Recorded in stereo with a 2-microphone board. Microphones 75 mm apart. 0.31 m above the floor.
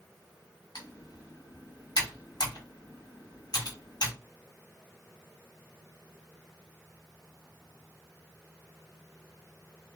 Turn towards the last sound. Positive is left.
turn(degrees=60)  # may be behind; listen again after turning